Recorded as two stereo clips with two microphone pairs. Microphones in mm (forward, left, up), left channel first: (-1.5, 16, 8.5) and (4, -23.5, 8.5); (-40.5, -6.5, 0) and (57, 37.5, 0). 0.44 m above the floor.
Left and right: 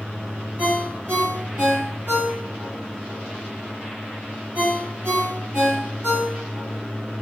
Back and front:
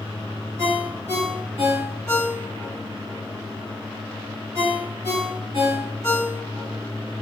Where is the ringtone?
35° right, 1.9 m.